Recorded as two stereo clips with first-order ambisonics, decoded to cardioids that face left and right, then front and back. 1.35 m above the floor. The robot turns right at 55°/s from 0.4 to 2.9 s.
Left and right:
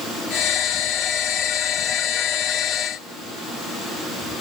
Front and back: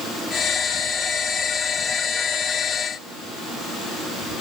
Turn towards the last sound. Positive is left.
No sound to turn to.